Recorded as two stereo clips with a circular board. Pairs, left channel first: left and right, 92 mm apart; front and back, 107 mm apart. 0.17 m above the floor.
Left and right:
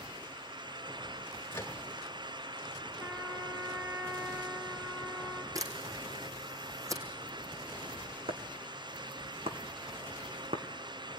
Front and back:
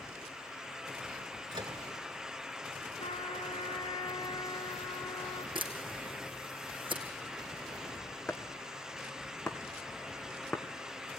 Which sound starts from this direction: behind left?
A microwave, at 1.5 s.